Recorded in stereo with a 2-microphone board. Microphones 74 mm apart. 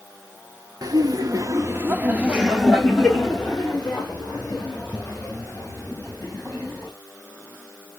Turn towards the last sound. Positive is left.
turn(degrees=25)  # may be behind; listen again after turning